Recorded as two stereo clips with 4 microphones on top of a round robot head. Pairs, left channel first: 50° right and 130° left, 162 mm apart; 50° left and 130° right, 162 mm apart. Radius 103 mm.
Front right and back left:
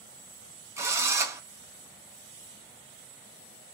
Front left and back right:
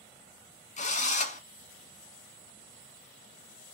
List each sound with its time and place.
0.8 s a drill: 60° left, 1.0 m